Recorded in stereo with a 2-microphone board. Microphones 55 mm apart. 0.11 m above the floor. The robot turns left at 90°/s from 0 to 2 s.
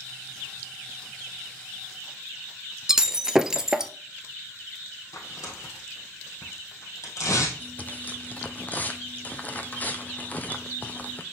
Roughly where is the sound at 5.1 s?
Left.